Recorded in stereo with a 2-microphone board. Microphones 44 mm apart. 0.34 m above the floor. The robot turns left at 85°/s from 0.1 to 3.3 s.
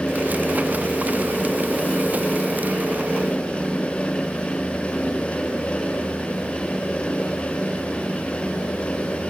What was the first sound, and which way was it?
Only background noise.